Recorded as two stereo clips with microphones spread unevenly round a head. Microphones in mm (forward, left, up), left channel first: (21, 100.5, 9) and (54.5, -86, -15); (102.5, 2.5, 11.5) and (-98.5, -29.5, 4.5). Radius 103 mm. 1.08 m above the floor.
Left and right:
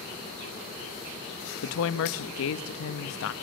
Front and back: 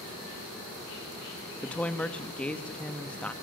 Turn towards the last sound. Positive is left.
turn(degrees=95)